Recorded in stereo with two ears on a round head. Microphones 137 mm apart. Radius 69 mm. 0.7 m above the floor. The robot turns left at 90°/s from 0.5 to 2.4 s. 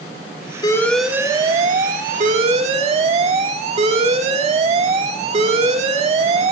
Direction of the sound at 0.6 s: 30° left.